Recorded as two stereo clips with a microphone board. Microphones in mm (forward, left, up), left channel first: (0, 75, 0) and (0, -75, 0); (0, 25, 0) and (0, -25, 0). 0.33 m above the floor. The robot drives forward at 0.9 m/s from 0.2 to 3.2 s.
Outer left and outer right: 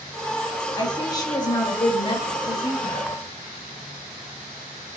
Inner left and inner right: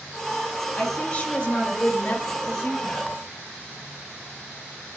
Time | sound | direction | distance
0.8 | a woman speaking | 20° left (ahead or behind) | 2 m